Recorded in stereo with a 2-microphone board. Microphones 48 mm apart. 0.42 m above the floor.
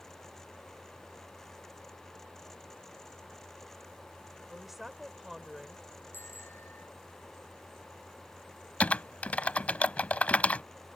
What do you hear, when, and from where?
4.5 s a woman speaking: 5° right (ahead or behind)
6.1 s a bicycle bell: 55° left (ahead or behind)
8.8 s typing on a keyboard: 30° left (ahead or behind)